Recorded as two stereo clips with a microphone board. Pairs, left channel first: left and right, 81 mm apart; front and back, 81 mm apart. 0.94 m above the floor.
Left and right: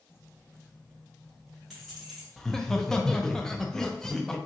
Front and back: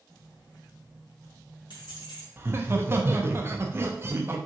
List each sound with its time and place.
0.1 s keys jangling: 35° left, 1.0 m; by 2.3 s 5° right, 2 m
2.4 s laughter: 170° left, 0.6 m